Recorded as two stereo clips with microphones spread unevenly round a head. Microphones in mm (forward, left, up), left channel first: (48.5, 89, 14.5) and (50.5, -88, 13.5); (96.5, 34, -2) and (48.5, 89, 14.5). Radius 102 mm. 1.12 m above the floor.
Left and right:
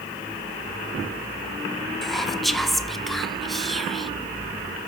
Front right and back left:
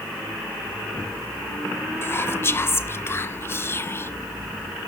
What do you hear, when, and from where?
2.0 s whispering: straight ahead, 0.8 m